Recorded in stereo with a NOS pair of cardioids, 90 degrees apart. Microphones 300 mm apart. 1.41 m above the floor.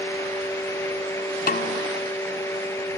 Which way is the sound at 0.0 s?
10° left.